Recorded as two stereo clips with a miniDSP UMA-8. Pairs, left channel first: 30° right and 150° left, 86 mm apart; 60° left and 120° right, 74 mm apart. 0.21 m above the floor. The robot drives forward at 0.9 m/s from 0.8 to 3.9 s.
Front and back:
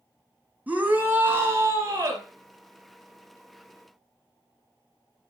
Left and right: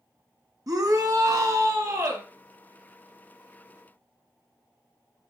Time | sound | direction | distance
0.7 | a shout | 140° right | 2 m